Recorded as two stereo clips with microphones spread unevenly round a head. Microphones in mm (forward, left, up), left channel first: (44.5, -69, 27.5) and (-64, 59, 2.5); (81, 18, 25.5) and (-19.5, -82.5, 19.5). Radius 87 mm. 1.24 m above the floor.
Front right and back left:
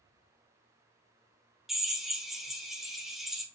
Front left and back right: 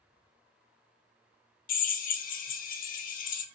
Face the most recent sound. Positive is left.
turn(degrees=35)